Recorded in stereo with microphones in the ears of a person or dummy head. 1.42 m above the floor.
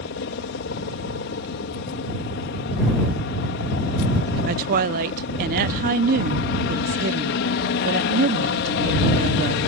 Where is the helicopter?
60° left (ahead or behind).